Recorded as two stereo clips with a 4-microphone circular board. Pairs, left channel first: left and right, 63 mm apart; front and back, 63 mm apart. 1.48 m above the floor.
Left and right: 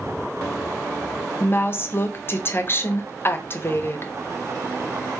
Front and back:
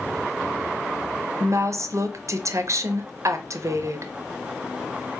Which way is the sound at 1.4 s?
140° left.